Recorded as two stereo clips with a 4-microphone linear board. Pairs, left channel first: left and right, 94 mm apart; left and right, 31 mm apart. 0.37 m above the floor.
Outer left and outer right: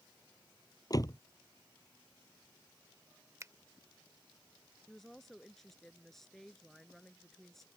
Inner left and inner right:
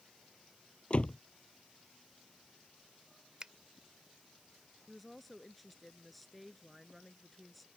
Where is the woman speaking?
5° left (ahead or behind).